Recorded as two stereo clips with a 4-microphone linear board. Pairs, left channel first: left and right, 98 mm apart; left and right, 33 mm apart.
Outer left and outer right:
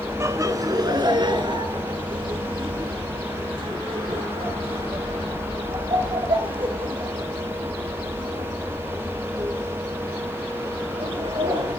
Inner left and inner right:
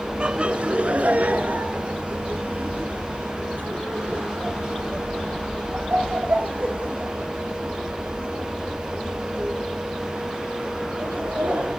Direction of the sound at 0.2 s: 30° right (ahead or behind).